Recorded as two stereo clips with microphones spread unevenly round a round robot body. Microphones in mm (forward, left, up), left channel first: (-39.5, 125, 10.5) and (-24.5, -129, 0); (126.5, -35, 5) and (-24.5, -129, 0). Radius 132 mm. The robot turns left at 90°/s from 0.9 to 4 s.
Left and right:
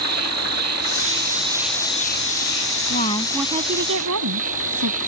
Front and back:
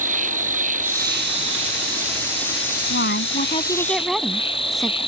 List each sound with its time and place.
0.0 s an insect: 105° right; by 5.1 s 25° right
2.9 s a woman speaking: 40° left; by 5.0 s 60° right